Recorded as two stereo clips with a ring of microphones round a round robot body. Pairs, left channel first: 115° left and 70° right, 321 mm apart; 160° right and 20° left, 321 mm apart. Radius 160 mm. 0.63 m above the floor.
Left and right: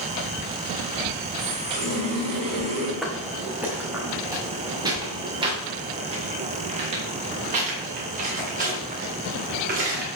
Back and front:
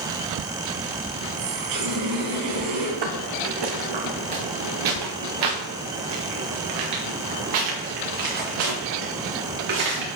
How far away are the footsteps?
About 2.5 m.